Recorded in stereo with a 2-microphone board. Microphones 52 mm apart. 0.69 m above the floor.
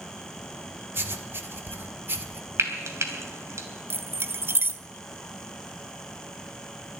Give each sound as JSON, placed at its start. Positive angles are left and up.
{"t": 0.9, "sound": "writing", "side_deg": -45, "distance_m": 1.2}
{"t": 2.6, "sound": "frying", "side_deg": -70, "distance_m": 2.5}
{"t": 3.9, "sound": "keys jangling", "side_deg": -45, "distance_m": 0.6}